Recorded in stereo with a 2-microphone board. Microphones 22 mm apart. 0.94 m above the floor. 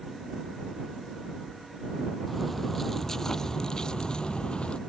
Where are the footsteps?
5° left (ahead or behind); by 4.8 s 50° left (ahead or behind).